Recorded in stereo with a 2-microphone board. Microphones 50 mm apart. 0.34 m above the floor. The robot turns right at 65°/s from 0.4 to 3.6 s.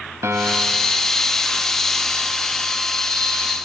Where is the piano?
95° right, 0.9 m; by 1.0 s 55° right, 0.9 m.